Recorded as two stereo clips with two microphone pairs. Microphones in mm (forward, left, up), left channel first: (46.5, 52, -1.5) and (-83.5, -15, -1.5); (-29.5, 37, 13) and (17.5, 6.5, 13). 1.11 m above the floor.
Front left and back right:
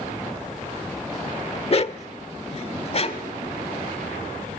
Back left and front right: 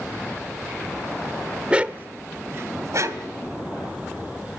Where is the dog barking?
30° left, 0.9 m; by 3.3 s 15° right, 2.5 m.